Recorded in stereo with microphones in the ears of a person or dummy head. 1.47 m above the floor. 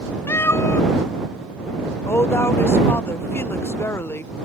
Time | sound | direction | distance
0.3 | a cat meowing | 10° left (ahead or behind) | ?
2.1 | a woman speaking | 15° left (ahead or behind) | ?